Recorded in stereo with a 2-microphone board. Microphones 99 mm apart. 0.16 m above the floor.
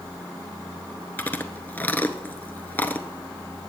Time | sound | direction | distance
1.2 | chewing | 20° left (ahead or behind) | 0.8 m